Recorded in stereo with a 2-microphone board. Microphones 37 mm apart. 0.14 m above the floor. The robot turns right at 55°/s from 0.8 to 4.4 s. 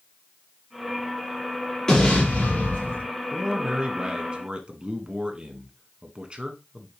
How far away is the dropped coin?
I don't hear a dropped coin.